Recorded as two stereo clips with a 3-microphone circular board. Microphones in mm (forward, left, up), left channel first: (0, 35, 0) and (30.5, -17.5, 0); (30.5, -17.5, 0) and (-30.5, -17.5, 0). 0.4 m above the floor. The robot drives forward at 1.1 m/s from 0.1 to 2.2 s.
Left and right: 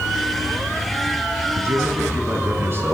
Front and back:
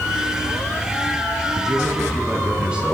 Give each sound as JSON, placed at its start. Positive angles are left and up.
{"t": 1.6, "sound": "a man speaking", "azimuth_deg": -100, "distance_m": 5.0}